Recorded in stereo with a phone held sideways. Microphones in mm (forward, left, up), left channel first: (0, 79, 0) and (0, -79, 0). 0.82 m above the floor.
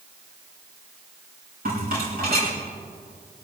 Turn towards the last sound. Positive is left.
turn(degrees=-70)  # may be behind; listen again after turning